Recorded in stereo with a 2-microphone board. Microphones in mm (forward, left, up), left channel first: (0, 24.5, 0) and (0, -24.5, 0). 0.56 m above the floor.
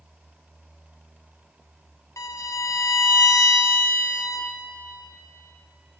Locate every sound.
2.2 s a violin: 90° left, 0.7 m